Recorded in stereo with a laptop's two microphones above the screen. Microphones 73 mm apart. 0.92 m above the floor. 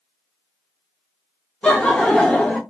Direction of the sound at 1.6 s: 10° left (ahead or behind).